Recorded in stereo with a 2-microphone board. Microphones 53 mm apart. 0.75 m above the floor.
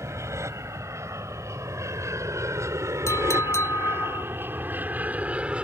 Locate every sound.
0.0 s an aircraft: 60° right (ahead or behind); by 5.6 s 20° right (ahead or behind)
3.1 s a clink: 60° left (ahead or behind)